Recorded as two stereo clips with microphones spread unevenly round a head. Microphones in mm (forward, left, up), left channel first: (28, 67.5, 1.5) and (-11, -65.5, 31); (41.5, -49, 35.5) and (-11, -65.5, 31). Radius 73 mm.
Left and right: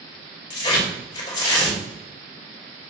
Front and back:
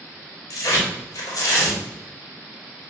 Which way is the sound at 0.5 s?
10° left.